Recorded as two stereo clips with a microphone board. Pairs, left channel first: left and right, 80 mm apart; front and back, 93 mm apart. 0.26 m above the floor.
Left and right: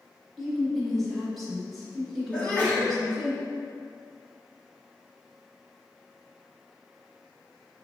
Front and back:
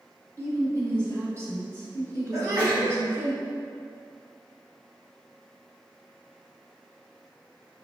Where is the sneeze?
150° left, 1.6 m.